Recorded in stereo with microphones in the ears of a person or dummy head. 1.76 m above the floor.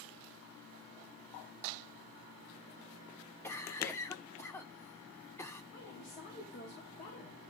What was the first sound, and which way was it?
A cough, 15° left (ahead or behind).